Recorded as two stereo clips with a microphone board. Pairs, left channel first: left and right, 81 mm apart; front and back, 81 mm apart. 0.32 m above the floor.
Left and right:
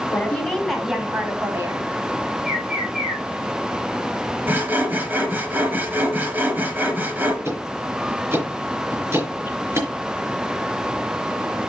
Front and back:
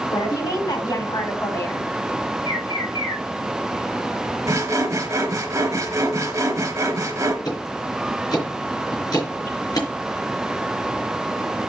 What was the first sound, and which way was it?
A woman speaking, 25° left.